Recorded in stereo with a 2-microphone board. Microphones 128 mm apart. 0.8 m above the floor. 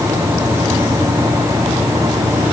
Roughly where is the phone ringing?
No phone ringing in this recording.